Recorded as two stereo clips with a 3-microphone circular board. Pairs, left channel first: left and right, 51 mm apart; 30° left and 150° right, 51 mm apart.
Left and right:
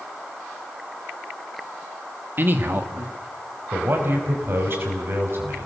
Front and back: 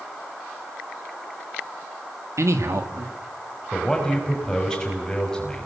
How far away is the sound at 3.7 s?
About 6 m.